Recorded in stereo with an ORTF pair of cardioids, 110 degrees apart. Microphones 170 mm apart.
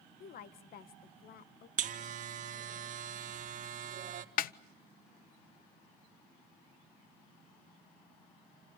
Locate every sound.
0.2 s a woman speaking: 60° left, 1.8 m
1.8 s a buzzer: 50° right, 1.8 m
4.4 s a snare drum: 60° left, 0.8 m